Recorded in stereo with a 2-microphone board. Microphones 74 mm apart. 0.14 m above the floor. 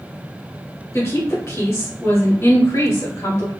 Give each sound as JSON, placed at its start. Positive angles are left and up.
{"t": 0.9, "sound": "a woman speaking", "side_deg": 40, "distance_m": 1.5}